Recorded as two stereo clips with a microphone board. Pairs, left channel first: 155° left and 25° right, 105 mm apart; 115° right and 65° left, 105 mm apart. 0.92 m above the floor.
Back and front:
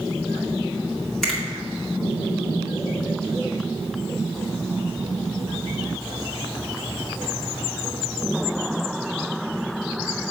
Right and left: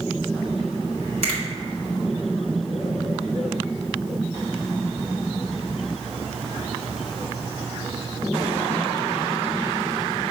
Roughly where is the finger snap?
Left.